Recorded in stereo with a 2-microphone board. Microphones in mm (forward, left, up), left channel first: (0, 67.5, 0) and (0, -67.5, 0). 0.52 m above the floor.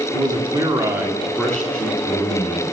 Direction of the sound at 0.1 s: 30° right (ahead or behind).